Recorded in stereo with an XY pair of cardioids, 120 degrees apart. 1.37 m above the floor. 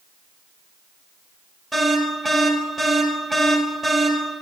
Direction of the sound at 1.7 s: 15° right.